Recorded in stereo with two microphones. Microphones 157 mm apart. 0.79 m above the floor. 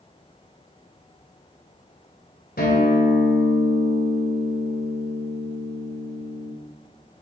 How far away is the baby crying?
No baby crying in this recording.